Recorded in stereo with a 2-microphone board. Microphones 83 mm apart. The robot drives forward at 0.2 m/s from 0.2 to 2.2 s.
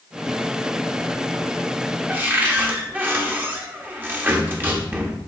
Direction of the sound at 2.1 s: 20° right (ahead or behind).